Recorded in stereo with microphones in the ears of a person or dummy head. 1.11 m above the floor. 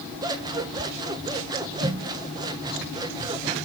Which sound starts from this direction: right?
Scissors, at 0.2 s.